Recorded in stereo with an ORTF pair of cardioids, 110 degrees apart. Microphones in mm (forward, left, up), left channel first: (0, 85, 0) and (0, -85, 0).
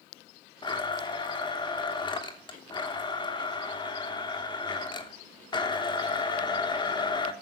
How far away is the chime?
No chime in this recording.